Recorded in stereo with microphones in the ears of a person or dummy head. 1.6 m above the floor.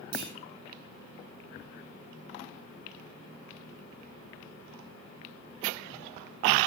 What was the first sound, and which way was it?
A clunk, 60° right (ahead or behind).